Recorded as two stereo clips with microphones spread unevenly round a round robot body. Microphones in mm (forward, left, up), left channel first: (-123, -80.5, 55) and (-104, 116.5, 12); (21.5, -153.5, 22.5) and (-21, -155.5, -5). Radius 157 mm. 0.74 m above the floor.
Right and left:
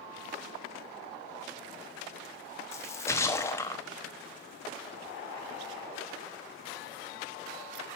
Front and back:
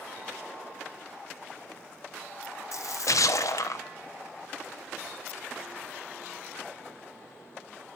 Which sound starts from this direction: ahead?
A splash, at 2.7 s.